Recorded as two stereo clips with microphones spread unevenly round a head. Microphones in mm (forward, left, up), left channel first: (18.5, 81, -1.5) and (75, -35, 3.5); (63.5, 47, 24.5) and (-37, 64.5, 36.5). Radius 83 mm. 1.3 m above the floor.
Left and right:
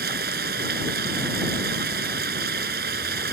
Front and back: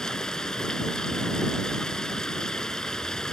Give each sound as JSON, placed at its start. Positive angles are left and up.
{"t": 0.0, "sound": "running water", "azimuth_deg": -95}